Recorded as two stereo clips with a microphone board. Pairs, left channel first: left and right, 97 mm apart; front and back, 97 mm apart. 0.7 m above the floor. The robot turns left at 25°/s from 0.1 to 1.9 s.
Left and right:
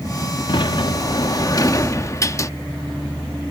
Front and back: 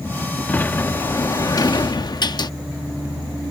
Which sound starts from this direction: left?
A sliding door, at 0.5 s.